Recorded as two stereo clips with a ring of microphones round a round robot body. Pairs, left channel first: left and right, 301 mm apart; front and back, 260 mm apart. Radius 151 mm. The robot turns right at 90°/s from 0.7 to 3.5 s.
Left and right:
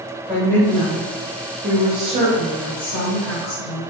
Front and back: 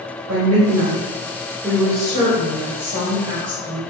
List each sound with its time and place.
0.3 s a woman speaking: 175° left, 1.7 m; by 3.8 s 65° left, 1.7 m